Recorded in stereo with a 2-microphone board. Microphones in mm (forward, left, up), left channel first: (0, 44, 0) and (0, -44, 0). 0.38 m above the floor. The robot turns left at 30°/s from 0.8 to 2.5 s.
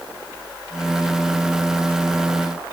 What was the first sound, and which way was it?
Only background noise.